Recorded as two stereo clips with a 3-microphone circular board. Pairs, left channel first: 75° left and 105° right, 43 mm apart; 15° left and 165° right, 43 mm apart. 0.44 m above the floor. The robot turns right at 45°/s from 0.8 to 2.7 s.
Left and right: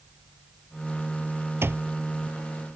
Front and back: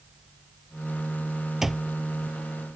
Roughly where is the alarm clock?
Right.